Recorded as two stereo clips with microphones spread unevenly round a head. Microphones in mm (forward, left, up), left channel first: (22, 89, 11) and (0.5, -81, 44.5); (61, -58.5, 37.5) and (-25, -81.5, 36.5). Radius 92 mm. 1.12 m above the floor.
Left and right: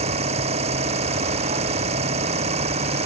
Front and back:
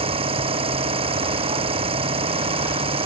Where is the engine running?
155° right.